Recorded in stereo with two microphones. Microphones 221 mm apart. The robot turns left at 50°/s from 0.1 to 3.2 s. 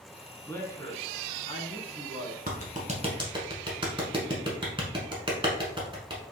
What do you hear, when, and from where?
0.5 s a man speaking: 10° left (ahead or behind), 1.2 m; by 2.4 s 25° left (ahead or behind), 1.2 m
2.5 s a clap: 45° right (ahead or behind), 1.4 m; by 6.2 s 25° right (ahead or behind), 1.4 m